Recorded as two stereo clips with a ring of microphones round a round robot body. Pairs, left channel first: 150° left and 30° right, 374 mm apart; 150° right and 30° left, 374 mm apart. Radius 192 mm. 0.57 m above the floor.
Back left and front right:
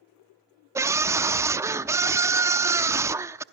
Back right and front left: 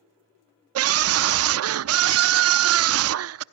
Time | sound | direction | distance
0.8 | a scream | 50° left | 0.7 m